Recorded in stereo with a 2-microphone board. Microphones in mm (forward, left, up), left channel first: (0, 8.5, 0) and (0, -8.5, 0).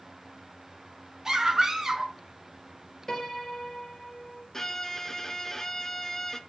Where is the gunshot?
No gunshot in this recording.